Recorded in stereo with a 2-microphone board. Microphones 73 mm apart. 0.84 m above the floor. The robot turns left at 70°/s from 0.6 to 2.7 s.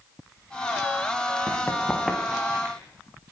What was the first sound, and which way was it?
Running footsteps, 50° left (ahead or behind).